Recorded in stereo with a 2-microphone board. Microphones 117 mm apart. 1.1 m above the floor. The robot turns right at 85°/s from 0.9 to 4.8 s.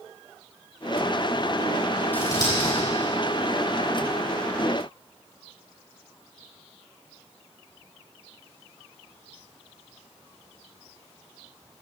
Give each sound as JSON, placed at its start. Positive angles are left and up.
{"t": 2.1, "sound": "scissors", "side_deg": 15, "distance_m": 6.0}